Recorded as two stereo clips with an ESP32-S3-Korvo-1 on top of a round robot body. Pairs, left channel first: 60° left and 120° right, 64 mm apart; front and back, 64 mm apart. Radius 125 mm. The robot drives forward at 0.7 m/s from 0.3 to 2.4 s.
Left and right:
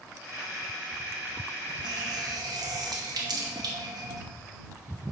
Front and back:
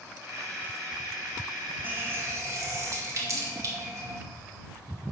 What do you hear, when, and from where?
1.8 s a running tap: 120° right, 0.8 m; by 4.2 s 140° right, 1.1 m